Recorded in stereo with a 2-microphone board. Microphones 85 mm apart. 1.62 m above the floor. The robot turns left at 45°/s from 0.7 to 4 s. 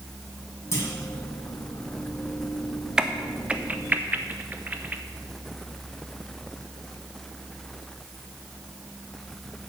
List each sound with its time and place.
0.7 s a clunk: 35° left (ahead or behind), 2.5 m; by 0.9 s 30° left (ahead or behind), 2.5 m
3.0 s a crack: 10° right (ahead or behind), 0.6 m; by 5.0 s 20° right (ahead or behind), 0.6 m